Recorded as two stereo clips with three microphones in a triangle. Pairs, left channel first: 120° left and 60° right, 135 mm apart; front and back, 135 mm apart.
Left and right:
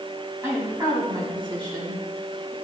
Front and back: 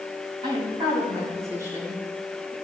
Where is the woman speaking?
130° right, 4 m; by 2.5 s 100° right, 4 m.